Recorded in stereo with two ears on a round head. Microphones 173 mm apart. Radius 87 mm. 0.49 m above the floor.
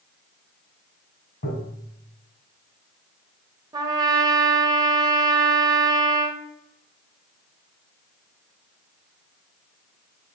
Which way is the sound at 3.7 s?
20° right (ahead or behind).